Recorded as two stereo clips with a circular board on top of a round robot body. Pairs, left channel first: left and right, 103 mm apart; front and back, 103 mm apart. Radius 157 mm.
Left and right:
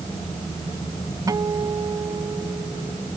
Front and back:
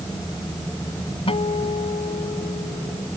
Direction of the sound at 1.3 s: 30° right.